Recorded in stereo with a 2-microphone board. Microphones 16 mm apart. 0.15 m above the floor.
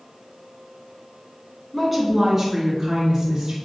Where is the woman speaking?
10° right (ahead or behind), 1.4 m; by 3.5 s 55° right (ahead or behind), 2.5 m.